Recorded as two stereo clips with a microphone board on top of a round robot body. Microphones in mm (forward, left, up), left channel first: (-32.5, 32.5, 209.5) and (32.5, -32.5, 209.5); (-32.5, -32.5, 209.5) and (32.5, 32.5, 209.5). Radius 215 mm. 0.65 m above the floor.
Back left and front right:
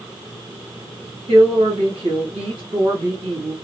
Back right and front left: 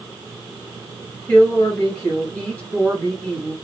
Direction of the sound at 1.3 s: 65° right.